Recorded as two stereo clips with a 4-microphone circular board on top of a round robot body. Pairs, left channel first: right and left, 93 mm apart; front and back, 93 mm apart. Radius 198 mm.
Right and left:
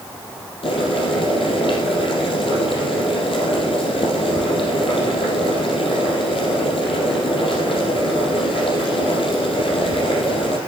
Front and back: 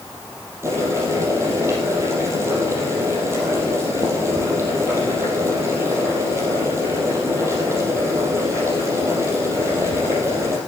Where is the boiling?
115° right, 4 m.